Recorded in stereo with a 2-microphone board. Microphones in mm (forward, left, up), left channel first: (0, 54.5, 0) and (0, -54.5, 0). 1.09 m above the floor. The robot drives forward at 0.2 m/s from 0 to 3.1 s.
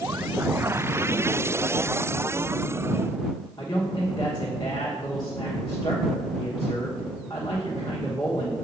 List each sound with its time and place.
3.6 s a man speaking: 40° left (ahead or behind), 1.1 m